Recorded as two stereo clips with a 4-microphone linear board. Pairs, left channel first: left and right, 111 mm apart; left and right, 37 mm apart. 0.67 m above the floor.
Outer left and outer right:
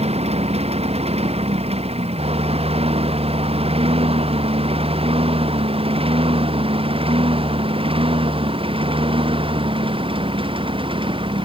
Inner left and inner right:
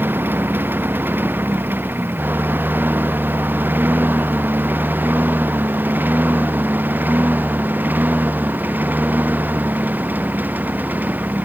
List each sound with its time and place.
0.0 s a lawn mower: 65° right (ahead or behind); by 11.4 s 50° right (ahead or behind)